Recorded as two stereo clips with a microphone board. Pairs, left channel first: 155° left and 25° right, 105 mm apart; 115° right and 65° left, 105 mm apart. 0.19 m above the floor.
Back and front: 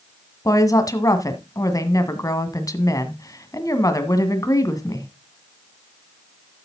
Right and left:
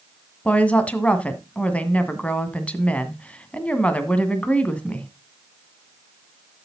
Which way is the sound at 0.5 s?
Straight behind.